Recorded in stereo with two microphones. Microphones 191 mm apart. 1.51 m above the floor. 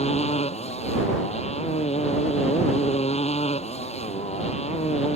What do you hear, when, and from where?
0.0 s a motorcycle: 35° left (ahead or behind)